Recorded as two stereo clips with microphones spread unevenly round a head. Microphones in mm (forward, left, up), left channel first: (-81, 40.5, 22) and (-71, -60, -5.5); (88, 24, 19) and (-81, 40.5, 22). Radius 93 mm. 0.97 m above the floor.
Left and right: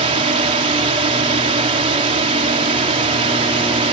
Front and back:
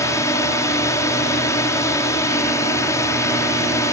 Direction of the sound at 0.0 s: 80° right.